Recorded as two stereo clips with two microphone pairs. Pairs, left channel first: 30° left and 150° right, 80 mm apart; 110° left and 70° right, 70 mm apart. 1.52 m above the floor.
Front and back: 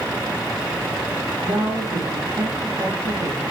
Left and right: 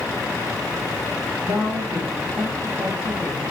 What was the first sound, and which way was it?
A woman speaking, 120° right.